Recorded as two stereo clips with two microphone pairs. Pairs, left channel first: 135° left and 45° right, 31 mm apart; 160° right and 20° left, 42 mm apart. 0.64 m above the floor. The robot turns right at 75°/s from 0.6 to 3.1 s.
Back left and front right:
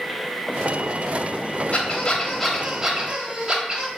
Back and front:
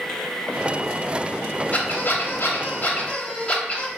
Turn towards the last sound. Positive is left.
turn(degrees=-100)